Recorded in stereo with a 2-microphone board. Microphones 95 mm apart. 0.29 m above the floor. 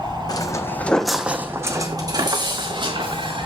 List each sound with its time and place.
0.3 s footsteps: 45° left (ahead or behind), 1.2 m; by 3.5 s 60° right (ahead or behind), 3 m